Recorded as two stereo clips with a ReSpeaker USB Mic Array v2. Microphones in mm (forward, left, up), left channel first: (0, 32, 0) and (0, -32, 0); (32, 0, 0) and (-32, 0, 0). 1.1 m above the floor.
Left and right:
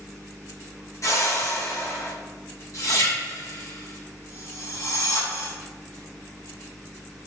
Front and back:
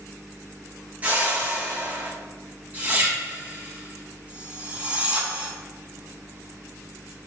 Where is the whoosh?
115° left, 1.7 m.